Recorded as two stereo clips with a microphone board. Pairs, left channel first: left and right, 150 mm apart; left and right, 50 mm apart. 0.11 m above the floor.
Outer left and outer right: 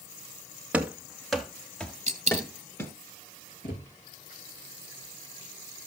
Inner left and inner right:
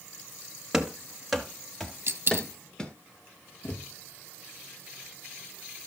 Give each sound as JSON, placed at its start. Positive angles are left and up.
{"t": 0.7, "sound": "running footsteps", "side_deg": -10, "distance_m": 1.9}
{"t": 2.1, "sound": "a dropped coin", "side_deg": -50, "distance_m": 1.4}
{"t": 3.6, "sound": "a thud", "side_deg": 65, "distance_m": 4.0}